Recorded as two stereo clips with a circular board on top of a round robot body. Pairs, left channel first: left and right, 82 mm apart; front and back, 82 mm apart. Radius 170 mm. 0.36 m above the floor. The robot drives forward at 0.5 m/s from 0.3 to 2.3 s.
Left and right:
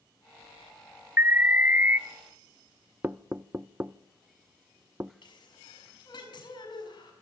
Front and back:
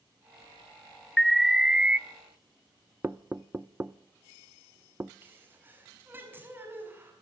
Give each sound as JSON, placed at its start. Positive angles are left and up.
{"t": 1.2, "sound": "an alarm", "azimuth_deg": -80, "distance_m": 1.3}
{"t": 3.0, "sound": "knocking", "azimuth_deg": -135, "distance_m": 0.8}
{"t": 5.2, "sound": "a sneeze", "azimuth_deg": 115, "distance_m": 5.5}